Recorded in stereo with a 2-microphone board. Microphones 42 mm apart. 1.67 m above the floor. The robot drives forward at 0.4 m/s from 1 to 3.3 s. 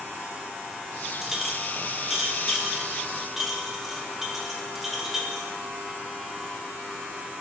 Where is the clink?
10° right (ahead or behind), 1.1 m; by 5.6 s 5° right (ahead or behind), 1.7 m.